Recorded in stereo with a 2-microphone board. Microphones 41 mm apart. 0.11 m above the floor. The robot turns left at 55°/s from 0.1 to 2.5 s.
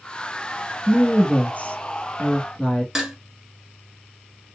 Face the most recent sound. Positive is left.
turn(degrees=-10)  # may be behind; listen again after turning